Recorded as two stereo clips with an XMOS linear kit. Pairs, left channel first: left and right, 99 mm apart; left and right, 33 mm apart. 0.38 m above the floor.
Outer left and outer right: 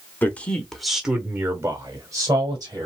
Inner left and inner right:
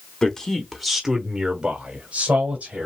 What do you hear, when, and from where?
0.2 s a man speaking: 20° left (ahead or behind), 1.2 m; by 2.9 s 40° right (ahead or behind), 1.8 m